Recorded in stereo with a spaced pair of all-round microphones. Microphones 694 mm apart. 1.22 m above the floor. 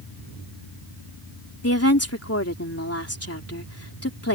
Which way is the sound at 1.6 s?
20° left (ahead or behind).